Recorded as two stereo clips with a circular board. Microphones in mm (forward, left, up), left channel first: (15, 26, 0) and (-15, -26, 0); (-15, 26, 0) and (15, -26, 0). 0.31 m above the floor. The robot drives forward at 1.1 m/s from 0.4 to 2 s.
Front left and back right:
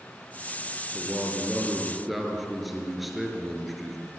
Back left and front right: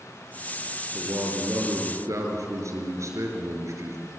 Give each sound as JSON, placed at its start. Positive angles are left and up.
{"t": 0.9, "sound": "a man speaking", "azimuth_deg": -25, "distance_m": 6.0}